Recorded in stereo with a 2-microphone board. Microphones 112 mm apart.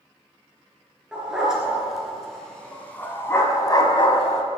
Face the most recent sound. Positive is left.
turn(degrees=65)  # may be behind; listen again after turning